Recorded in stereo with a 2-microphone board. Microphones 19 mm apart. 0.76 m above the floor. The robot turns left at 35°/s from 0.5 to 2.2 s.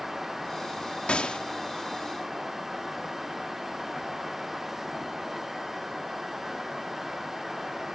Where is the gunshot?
70° left (ahead or behind); by 1.4 s 60° left (ahead or behind).